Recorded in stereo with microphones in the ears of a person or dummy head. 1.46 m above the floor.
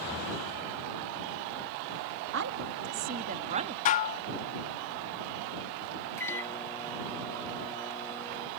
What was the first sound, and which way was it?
A woman speaking, 65° right (ahead or behind).